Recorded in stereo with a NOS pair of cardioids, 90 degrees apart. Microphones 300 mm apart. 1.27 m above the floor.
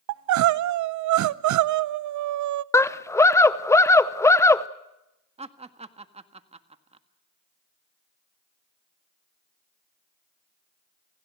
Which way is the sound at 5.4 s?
20° right.